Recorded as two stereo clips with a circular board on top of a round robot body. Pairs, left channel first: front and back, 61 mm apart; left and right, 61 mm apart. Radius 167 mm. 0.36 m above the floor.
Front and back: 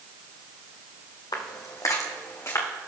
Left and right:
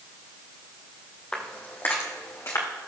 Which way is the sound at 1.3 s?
15° left.